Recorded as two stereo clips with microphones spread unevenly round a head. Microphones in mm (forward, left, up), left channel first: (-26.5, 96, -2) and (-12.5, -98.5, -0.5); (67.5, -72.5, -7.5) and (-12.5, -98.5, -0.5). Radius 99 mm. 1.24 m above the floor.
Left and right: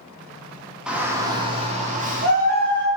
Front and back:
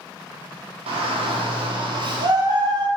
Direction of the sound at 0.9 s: 170° right.